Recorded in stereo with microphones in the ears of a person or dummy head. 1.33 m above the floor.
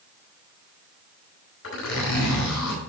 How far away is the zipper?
About 4.5 m.